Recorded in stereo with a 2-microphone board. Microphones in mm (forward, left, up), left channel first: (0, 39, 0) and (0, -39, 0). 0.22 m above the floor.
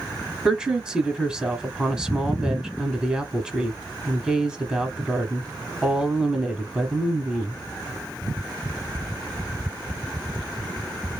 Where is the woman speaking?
10° right (ahead or behind), 1.1 m.